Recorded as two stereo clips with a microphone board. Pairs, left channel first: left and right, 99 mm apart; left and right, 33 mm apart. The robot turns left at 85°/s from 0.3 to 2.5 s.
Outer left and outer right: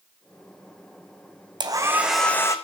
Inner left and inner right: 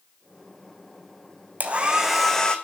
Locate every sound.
1.6 s a hair dryer: 135° right, 1.3 m; by 2.5 s 150° left, 1.3 m